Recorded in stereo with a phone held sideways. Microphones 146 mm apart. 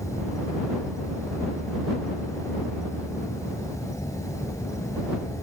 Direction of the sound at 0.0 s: 20° left (ahead or behind).